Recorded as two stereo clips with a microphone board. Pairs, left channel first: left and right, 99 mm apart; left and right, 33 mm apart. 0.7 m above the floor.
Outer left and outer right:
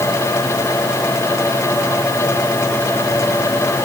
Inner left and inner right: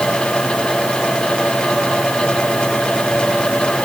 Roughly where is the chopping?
No chopping in this recording.